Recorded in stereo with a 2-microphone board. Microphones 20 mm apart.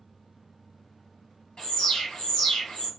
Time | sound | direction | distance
1.6 | an alarm | 55° left (ahead or behind) | 1.8 m